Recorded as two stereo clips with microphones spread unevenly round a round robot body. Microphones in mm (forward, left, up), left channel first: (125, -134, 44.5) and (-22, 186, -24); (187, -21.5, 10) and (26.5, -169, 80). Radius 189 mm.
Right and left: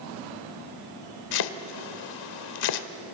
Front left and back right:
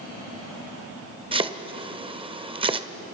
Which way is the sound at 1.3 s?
80° right.